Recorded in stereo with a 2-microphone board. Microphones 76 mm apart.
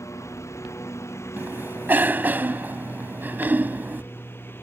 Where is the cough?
25° right (ahead or behind).